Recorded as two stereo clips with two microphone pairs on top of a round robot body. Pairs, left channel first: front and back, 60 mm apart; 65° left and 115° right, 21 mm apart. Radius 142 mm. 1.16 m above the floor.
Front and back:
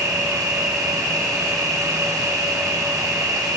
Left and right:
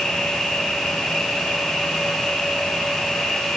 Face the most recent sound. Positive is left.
turn(degrees=150)